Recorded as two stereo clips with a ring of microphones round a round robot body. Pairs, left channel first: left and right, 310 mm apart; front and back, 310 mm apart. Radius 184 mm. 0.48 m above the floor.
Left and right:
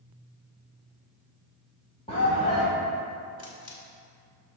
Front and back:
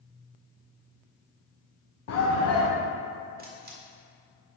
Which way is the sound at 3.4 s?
120° left.